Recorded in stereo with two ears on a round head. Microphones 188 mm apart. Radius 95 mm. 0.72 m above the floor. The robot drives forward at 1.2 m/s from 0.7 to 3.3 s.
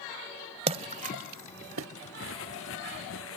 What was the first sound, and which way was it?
A splash, 30° right (ahead or behind).